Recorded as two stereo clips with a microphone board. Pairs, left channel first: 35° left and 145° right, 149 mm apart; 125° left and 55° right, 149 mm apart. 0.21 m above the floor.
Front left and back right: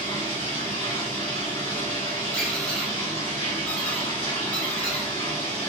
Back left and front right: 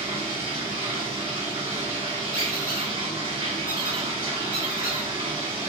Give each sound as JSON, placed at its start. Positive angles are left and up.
{"t": 0.0, "sound": "running water", "azimuth_deg": -10, "distance_m": 1.9}
{"t": 2.3, "sound": "a squeak", "azimuth_deg": 110, "distance_m": 1.1}